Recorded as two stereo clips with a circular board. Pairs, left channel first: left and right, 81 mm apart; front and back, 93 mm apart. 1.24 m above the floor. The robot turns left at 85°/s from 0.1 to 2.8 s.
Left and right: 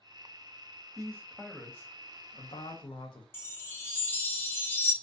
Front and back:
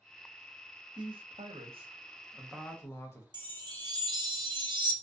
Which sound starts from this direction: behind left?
A chime, at 3.3 s.